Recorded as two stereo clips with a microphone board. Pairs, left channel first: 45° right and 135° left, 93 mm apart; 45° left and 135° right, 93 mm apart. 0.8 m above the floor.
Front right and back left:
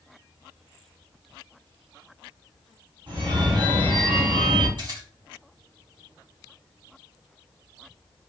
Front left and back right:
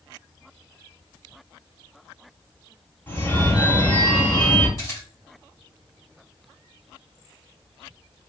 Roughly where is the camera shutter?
Left.